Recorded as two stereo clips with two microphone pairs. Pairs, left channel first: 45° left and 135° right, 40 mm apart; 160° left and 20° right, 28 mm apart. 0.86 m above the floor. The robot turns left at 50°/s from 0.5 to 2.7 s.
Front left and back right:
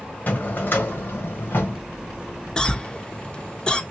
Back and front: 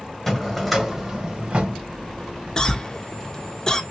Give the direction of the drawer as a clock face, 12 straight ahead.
9 o'clock.